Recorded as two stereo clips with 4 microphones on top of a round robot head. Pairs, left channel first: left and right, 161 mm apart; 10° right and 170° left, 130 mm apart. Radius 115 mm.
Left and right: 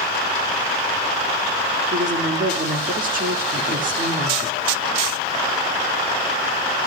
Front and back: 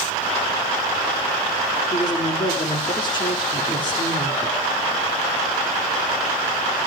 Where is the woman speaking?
65° right, 2 m.